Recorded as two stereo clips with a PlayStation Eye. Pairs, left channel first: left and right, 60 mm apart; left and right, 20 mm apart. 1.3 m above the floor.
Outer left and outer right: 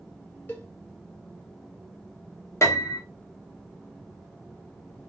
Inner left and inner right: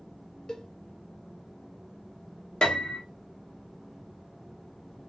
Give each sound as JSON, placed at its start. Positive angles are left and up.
{"t": 0.5, "sound": "a cowbell", "side_deg": 35, "distance_m": 0.8}
{"t": 2.6, "sound": "a piano", "side_deg": 50, "distance_m": 0.7}